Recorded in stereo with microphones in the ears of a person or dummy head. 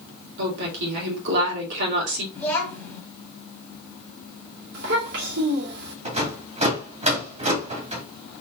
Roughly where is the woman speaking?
Right.